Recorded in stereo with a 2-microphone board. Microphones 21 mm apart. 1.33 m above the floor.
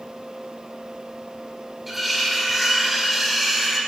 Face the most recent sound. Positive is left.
turn(degrees=-10)  # may be behind; listen again after turning